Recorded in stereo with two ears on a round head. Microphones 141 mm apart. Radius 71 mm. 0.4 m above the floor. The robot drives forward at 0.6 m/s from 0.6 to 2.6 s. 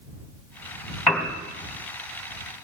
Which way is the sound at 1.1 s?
5° left (ahead or behind).